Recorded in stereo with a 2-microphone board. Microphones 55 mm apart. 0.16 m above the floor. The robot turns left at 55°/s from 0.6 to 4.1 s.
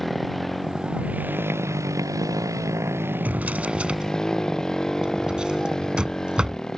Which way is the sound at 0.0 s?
Straight ahead.